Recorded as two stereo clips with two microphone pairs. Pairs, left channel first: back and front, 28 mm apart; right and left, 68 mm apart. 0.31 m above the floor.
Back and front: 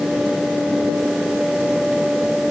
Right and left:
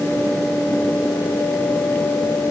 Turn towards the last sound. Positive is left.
No sound to turn to.